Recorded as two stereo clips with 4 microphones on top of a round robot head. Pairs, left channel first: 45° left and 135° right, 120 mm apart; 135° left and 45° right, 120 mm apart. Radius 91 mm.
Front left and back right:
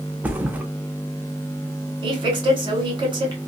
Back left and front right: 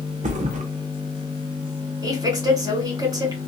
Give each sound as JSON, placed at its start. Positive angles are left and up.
{"t": 0.2, "sound": "a thud", "azimuth_deg": -55, "distance_m": 0.8}
{"t": 2.0, "sound": "a woman speaking", "azimuth_deg": -95, "distance_m": 2.0}